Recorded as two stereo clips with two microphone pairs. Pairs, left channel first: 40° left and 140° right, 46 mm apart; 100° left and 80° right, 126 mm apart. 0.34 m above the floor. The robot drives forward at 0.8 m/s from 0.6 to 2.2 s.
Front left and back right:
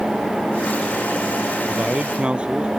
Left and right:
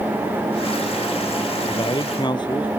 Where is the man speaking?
155° left.